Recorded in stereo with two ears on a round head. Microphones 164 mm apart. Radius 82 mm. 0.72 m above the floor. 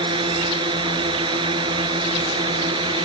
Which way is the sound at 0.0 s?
30° right (ahead or behind).